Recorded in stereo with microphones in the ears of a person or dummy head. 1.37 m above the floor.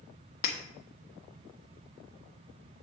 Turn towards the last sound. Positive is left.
turn(degrees=45)  # may be behind; listen again after turning